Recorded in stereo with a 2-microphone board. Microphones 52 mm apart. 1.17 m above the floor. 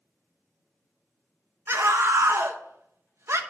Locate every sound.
1.7 s a scream: 55° right (ahead or behind), 1.2 m